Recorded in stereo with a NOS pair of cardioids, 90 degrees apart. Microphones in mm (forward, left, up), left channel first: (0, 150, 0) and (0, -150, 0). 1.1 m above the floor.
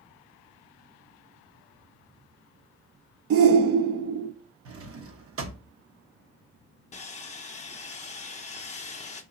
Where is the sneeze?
I don't hear a sneeze.